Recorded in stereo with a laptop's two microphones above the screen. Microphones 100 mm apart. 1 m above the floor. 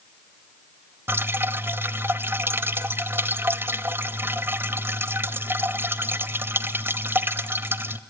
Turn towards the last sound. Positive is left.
turn(degrees=-25)  # may be behind; listen again after turning